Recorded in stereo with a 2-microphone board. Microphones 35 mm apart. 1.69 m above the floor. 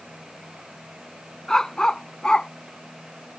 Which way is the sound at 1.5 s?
15° left (ahead or behind).